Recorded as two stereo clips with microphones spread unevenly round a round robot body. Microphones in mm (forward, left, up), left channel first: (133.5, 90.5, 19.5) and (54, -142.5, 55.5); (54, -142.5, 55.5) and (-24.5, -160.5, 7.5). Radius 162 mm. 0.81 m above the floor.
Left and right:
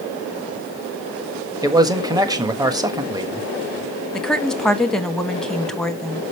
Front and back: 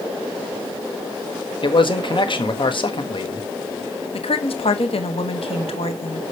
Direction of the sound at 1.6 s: 30° right.